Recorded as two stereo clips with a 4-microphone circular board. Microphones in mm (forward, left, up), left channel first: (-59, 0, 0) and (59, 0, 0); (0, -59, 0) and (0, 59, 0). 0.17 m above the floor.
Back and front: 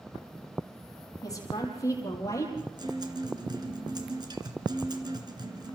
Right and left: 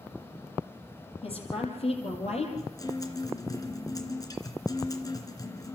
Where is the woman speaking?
120° right, 6 m; by 2.5 s 115° right, 5 m.